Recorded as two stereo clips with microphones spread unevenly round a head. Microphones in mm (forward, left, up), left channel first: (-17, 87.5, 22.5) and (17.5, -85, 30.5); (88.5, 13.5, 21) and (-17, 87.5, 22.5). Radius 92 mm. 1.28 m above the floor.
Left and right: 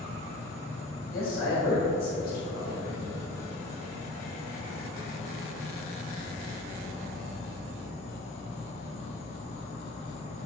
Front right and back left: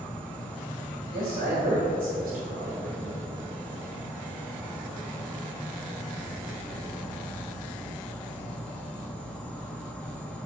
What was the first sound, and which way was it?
An insect, 45° left.